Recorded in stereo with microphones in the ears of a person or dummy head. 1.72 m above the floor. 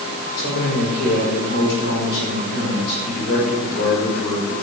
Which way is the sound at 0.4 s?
60° left (ahead or behind).